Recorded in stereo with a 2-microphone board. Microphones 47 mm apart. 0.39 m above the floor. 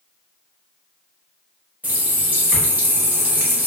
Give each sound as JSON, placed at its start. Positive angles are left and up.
{"t": 1.8, "sound": "a running tap", "side_deg": -35, "distance_m": 0.9}